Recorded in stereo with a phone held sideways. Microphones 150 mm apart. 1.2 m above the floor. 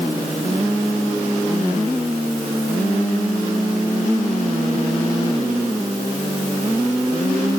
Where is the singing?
I don't hear singing.